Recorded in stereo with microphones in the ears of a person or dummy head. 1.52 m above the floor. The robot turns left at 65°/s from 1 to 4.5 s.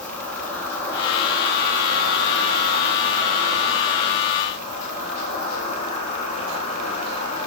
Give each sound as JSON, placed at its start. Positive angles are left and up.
{"t": 0.0, "sound": "an insect", "azimuth_deg": 10, "distance_m": 5.0}